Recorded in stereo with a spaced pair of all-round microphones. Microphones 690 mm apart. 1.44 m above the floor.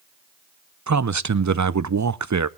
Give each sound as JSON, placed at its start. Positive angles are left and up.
{"t": 0.9, "sound": "a man speaking", "side_deg": -30, "distance_m": 0.5}